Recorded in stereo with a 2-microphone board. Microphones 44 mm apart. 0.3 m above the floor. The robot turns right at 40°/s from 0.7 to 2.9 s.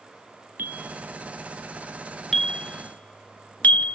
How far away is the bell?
About 0.7 m.